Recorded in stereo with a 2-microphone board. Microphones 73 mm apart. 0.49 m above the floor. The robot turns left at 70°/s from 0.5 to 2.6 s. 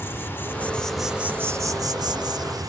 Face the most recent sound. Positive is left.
turn(degrees=-115)